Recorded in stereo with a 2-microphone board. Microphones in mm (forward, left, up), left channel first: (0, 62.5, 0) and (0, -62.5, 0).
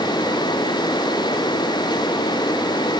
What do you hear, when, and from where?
Only background noise.